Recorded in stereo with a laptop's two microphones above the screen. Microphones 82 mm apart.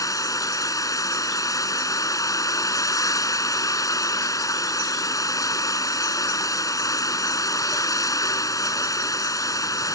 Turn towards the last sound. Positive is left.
turn(degrees=45)  # may be behind; listen again after turning